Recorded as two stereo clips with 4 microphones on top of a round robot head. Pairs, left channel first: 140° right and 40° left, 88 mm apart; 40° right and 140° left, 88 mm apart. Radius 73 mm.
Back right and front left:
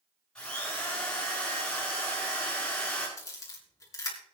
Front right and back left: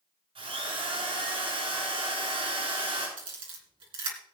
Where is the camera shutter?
165° left, 3 m.